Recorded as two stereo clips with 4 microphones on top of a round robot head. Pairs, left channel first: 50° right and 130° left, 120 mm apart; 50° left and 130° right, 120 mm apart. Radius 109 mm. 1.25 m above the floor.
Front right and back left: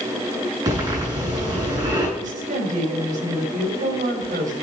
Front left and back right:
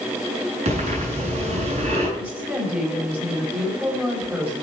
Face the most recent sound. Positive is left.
turn(degrees=150)